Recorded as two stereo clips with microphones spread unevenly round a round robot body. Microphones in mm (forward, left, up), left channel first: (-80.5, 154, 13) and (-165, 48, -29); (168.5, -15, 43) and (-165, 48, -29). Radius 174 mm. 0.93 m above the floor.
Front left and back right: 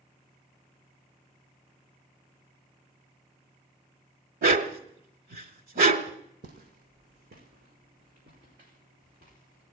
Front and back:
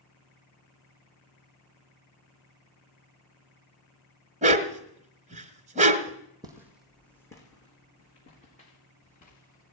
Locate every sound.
4.4 s a dog barking: 115° right, 1.0 m
6.4 s footsteps: 105° right, 2.0 m; by 9.7 s 75° right, 6 m